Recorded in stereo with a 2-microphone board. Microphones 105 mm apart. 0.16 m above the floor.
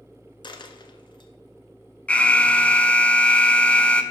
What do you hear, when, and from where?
0.4 s a dropped coin: 50° left (ahead or behind), 1.0 m
2.1 s an alarm: 10° left (ahead or behind), 0.8 m